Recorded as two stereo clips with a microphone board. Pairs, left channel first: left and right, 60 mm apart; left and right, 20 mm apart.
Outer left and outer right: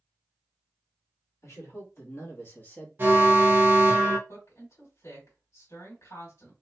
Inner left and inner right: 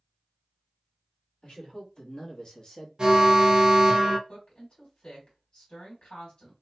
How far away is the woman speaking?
About 2 m.